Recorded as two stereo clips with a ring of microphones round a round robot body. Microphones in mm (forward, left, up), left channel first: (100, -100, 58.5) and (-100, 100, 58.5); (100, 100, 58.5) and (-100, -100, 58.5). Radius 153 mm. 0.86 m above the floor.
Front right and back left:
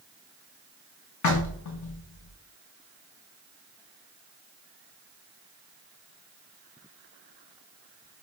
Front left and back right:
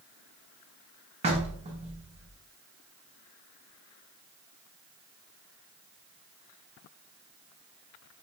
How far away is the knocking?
About 0.7 m.